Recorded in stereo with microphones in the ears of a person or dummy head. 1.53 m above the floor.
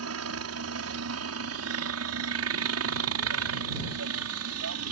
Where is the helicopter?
70° right (ahead or behind).